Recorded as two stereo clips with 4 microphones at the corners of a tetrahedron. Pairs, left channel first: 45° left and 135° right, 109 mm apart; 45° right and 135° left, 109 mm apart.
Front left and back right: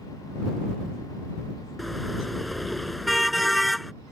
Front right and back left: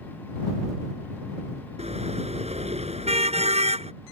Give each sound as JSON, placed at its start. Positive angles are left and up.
{"t": 1.8, "sound": "a car horn", "azimuth_deg": 135}